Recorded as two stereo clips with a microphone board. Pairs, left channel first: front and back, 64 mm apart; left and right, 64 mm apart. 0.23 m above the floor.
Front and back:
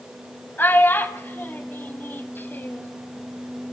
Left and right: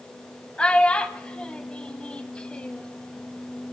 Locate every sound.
0.6 s a child speaking: 30° left, 0.9 m